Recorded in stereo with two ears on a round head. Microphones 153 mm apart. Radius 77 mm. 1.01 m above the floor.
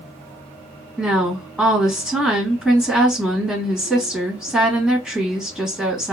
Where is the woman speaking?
5° right (ahead or behind), 1.6 m.